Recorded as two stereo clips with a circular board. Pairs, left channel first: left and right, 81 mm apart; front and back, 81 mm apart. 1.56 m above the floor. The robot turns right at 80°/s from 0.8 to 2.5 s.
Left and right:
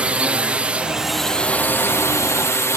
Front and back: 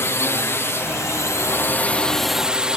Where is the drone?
25° right; by 2.8 s 110° left.